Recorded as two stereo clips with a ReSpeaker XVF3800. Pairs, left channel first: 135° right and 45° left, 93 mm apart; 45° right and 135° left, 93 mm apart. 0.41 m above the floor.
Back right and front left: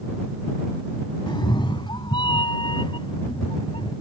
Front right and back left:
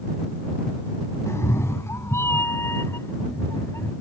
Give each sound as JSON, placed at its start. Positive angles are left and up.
{"t": 1.3, "sound": "a cat meowing", "azimuth_deg": -105}